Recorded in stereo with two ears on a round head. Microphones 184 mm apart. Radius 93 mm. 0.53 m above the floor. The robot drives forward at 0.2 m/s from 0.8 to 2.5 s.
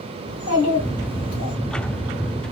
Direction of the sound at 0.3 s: 55° left (ahead or behind).